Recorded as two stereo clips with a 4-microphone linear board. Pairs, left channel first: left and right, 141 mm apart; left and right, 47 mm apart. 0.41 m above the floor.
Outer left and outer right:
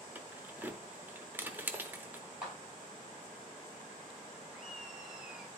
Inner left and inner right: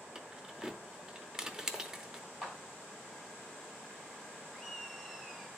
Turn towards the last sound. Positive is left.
turn(degrees=-5)  # may be behind; listen again after turning